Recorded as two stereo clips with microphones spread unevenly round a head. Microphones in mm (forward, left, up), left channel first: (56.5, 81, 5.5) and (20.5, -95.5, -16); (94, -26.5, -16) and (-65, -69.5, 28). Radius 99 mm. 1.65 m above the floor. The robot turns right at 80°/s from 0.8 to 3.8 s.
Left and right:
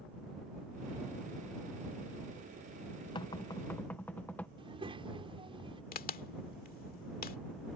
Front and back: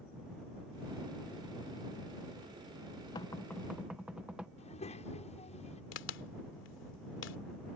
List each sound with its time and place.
3.1 s knocking: 90° left; by 4.5 s 140° left
4.6 s a child speaking: 40° right
5.9 s a crack: 50° left